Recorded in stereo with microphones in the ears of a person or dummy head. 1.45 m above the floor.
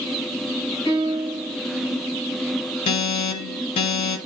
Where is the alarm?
40° left (ahead or behind), 1.4 m.